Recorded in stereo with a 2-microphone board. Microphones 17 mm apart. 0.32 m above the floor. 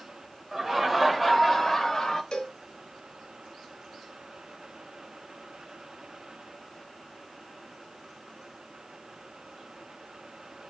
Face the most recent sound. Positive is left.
turn(degrees=65)  # may be behind; listen again after turning